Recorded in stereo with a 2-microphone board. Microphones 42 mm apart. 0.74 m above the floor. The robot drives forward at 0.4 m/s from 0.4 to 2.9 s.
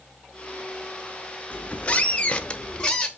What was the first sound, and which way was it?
A squeak, 35° left (ahead or behind).